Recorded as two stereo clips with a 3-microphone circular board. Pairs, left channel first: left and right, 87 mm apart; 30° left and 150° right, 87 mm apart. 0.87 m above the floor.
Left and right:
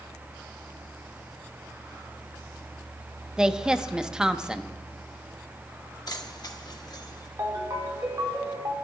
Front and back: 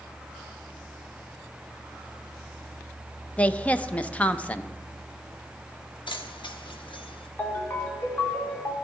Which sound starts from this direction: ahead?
A woman speaking, at 3.4 s.